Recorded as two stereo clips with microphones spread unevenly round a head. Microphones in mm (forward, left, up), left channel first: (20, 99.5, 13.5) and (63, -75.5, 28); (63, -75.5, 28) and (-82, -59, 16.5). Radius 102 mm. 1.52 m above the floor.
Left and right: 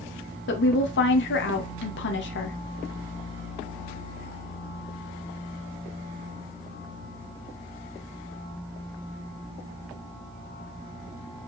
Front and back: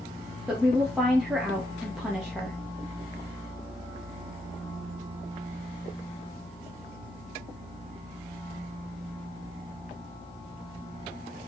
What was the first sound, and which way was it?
A woman speaking, 85° left.